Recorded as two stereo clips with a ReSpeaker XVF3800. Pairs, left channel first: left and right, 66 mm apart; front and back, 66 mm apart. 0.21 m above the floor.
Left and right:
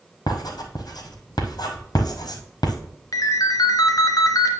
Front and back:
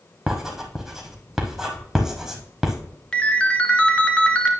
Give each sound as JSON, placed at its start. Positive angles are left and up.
{"t": 0.3, "sound": "writing", "azimuth_deg": 95, "distance_m": 1.4}
{"t": 3.1, "sound": "a ringtone", "azimuth_deg": 75, "distance_m": 1.1}